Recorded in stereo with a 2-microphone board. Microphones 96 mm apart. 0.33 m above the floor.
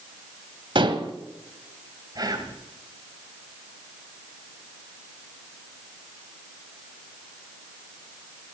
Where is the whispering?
45° right (ahead or behind), 2 m.